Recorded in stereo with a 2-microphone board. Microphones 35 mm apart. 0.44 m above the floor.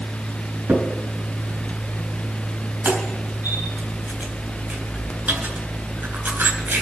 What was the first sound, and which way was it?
A crack, 75° right (ahead or behind).